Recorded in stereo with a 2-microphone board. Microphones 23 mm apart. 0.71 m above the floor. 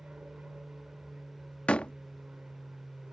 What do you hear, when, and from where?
0.0 s an aircraft: 60° right (ahead or behind)
1.7 s a door slam: 55° left (ahead or behind)